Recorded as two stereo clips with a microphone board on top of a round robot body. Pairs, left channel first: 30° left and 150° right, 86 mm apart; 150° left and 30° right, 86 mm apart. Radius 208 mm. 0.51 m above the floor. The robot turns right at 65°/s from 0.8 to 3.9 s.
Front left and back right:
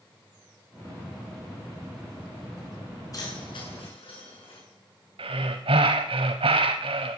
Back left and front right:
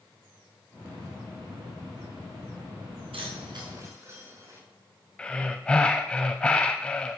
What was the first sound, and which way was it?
Keys jangling, 20° right.